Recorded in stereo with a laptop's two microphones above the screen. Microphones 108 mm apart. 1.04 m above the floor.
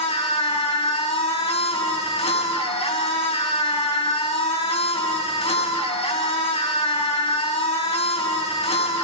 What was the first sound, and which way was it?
A machine running, 65° left (ahead or behind).